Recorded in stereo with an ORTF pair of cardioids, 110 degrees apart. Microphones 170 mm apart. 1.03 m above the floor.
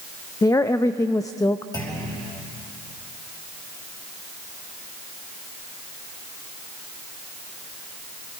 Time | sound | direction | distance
0.4 | a woman speaking | 20° left | 0.6 m
1.7 | a clunk | 25° left | 5 m